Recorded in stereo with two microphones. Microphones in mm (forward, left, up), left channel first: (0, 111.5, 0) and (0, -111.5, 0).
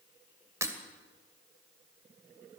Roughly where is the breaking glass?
Centre.